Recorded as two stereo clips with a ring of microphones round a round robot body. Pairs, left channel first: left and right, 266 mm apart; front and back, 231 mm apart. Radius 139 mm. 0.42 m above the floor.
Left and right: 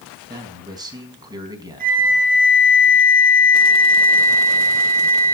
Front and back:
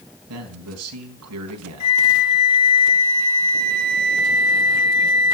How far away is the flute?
About 3 m.